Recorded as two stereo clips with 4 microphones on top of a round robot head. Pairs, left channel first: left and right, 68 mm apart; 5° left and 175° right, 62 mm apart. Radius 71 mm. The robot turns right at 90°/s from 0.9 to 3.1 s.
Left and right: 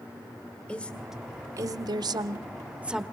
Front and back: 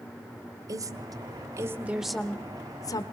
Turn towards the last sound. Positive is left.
turn(degrees=5)